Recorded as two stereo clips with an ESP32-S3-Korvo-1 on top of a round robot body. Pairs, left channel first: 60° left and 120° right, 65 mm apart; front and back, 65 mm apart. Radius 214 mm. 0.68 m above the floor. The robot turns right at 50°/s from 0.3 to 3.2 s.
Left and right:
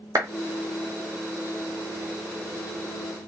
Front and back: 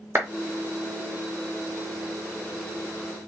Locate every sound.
0.1 s a clap: 135° right, 0.8 m